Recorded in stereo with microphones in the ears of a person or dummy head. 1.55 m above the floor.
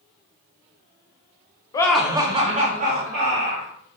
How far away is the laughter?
About 0.5 m.